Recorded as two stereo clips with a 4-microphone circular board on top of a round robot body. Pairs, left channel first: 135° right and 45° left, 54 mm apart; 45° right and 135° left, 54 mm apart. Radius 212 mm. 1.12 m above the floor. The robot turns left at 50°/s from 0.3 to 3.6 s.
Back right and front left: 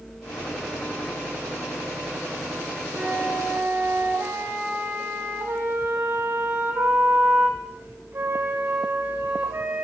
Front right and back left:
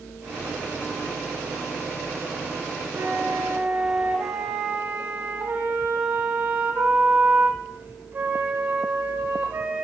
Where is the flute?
115° left, 6.5 m; by 9.8 s 85° left, 6.5 m.